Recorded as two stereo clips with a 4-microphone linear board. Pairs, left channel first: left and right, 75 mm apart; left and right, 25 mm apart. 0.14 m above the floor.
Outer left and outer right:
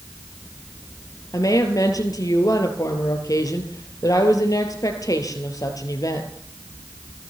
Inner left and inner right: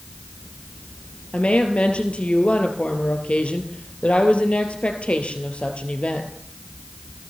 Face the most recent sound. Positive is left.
turn(degrees=50)  # may be behind; listen again after turning